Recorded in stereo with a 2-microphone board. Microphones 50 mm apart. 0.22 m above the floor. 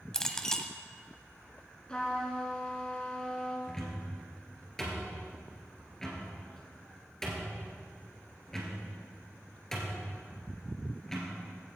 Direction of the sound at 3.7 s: 10° left (ahead or behind).